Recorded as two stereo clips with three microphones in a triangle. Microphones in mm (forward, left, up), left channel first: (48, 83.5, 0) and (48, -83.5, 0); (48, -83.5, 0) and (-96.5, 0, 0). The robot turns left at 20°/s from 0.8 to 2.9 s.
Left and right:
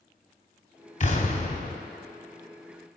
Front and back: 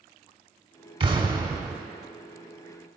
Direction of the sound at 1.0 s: 105° left.